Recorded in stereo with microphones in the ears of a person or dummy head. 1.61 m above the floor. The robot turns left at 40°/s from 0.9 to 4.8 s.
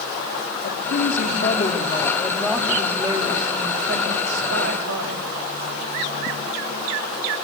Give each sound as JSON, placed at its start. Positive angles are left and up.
{"t": 0.6, "sound": "a woman speaking", "azimuth_deg": 65, "distance_m": 4.5}